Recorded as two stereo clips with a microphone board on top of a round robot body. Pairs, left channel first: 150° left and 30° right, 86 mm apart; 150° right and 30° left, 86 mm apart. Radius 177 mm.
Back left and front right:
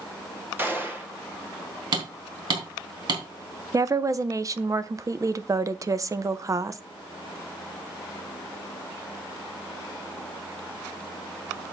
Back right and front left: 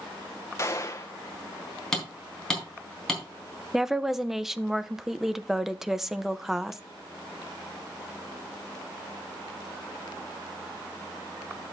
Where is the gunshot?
95° right, 1.9 m.